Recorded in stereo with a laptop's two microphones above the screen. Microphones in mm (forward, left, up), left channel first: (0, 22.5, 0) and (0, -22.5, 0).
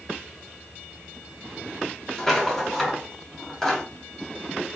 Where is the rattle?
10° left (ahead or behind), 0.9 m.